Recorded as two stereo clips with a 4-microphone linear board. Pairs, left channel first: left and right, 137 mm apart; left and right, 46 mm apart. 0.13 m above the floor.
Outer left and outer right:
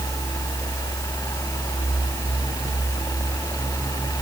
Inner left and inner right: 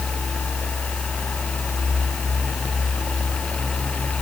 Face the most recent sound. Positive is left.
No sound to turn to.